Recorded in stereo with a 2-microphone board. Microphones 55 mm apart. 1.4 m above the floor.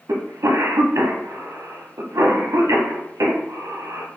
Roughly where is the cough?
Right.